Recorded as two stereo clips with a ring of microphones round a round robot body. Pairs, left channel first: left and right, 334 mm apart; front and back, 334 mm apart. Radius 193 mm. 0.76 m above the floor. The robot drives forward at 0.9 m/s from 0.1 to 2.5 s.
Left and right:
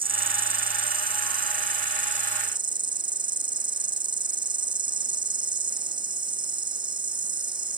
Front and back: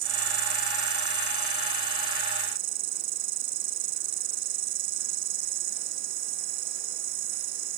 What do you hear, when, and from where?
0.0 s an insect: 165° right